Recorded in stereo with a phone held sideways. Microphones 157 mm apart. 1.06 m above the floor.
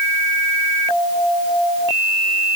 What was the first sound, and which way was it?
Only background noise.